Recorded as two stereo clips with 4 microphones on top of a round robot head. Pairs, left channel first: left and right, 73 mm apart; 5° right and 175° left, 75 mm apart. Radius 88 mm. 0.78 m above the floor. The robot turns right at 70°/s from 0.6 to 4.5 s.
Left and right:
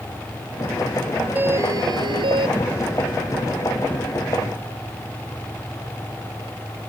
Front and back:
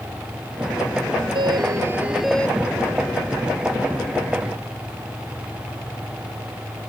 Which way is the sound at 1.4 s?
155° right.